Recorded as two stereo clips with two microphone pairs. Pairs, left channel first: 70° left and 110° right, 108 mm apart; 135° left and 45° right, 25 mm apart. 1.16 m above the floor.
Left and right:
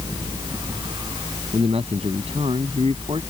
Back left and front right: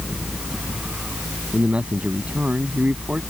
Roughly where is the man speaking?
Right.